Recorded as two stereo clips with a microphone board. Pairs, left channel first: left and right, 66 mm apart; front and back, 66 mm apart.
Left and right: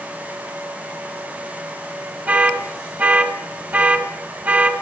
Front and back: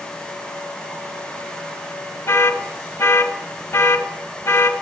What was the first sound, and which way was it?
An alarm, 40° right.